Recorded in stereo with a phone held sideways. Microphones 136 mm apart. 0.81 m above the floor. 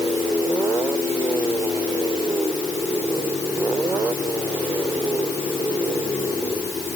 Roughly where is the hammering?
No hammering in this recording.